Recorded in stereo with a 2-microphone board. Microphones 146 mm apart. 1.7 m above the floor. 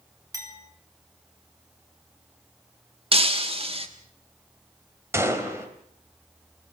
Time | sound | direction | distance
0.3 | a clink | 25° right (ahead or behind) | 3.5 m
3.1 | breaking glass | 40° right (ahead or behind) | 1.5 m
5.1 | a gunshot | 20° right (ahead or behind) | 3 m